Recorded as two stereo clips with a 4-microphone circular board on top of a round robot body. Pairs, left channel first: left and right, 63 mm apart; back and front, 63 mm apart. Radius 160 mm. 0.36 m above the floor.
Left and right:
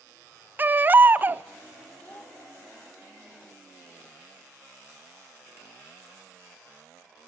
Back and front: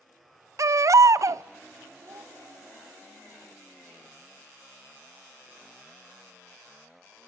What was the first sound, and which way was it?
A baby crying, 30° right.